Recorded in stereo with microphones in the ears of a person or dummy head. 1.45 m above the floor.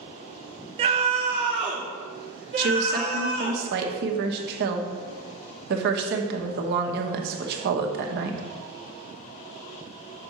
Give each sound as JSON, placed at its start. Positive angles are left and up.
{"t": 0.8, "sound": "a scream", "side_deg": -30, "distance_m": 0.5}
{"t": 2.6, "sound": "a woman speaking", "side_deg": -55, "distance_m": 1.2}